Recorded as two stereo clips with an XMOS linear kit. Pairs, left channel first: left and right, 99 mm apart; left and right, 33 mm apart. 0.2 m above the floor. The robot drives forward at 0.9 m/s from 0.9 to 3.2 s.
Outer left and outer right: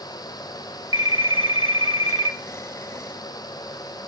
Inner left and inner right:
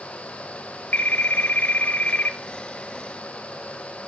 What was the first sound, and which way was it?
A phone ringing, 65° left (ahead or behind).